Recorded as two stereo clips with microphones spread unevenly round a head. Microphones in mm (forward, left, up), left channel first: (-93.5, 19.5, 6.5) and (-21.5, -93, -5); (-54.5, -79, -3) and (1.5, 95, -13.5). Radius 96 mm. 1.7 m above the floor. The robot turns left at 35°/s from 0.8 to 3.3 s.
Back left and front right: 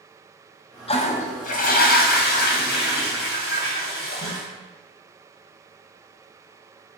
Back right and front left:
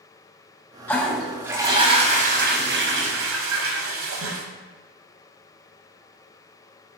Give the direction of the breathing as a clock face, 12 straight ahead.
No breathing in this recording.